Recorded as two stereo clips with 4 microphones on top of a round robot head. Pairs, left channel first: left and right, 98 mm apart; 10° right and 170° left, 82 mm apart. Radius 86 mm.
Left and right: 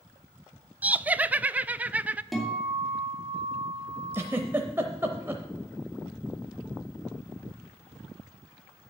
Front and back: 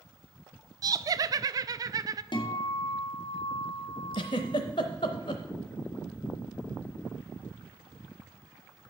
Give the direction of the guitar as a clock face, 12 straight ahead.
12 o'clock.